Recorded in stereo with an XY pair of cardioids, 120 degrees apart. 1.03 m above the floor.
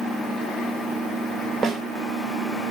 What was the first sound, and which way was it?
A snare drum, 45° right.